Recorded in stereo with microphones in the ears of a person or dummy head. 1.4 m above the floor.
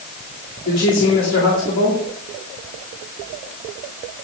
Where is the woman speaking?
65° left (ahead or behind), 2.5 m.